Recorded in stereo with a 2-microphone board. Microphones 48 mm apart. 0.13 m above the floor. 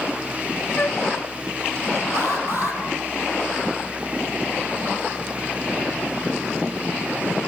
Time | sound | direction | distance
0.8 | a flute | 35° left (ahead or behind) | 0.6 m
2.1 | an alarm | 45° right (ahead or behind) | 4.5 m